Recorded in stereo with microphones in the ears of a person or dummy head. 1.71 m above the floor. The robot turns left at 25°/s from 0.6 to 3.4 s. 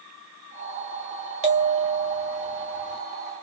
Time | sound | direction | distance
1.4 | a bell | 140° right | 0.6 m